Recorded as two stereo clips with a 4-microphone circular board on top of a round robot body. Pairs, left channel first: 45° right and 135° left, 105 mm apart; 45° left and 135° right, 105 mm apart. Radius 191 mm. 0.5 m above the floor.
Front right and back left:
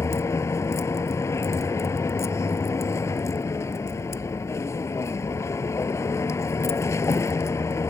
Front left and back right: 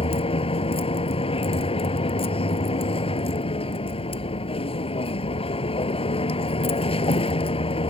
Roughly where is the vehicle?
Ahead.